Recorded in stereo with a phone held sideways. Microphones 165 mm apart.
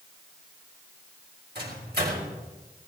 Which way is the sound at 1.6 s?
70° right (ahead or behind).